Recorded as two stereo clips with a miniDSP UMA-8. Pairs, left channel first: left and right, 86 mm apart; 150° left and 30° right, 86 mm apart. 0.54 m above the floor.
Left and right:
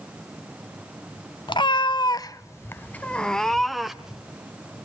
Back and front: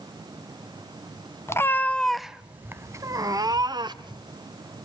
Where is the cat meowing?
95° left, 0.7 m; by 4.2 s 5° right, 1.2 m.